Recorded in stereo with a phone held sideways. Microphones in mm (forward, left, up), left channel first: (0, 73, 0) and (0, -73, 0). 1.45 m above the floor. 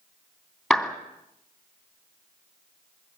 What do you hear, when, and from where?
0.7 s a clap: centre (ahead or behind), 2.5 m